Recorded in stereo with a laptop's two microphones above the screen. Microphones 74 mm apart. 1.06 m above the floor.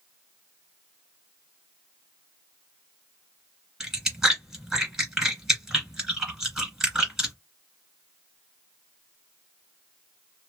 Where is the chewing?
10° right (ahead or behind), 1.6 m.